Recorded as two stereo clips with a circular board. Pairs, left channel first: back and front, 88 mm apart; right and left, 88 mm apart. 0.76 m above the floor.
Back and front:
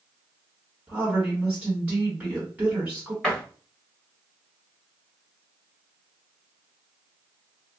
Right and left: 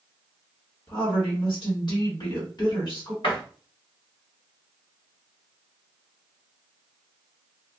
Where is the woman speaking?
70° right, 1.5 m.